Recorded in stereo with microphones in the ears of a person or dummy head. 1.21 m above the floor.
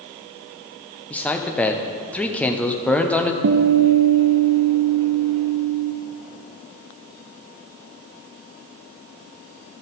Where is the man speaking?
5° left (ahead or behind), 0.6 m.